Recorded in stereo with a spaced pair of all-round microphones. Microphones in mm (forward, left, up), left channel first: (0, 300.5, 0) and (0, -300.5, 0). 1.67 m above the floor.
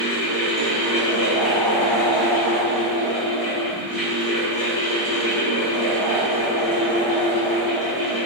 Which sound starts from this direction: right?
A fan, at 0.0 s.